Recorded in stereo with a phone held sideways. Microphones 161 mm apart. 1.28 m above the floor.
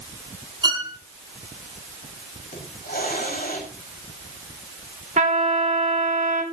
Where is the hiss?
65° left (ahead or behind), 5.5 m.